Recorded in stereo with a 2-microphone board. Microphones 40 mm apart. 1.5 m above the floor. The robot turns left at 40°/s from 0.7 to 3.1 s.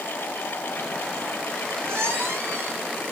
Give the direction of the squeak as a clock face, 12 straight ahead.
2 o'clock.